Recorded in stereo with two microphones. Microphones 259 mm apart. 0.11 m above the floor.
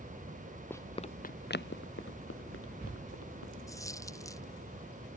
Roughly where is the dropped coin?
Centre.